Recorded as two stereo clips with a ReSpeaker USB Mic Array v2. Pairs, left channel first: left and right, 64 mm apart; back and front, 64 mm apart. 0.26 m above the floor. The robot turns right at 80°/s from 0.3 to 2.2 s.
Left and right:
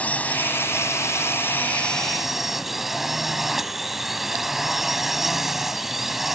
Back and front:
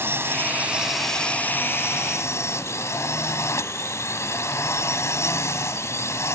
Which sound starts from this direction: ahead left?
A drone, at 0.0 s.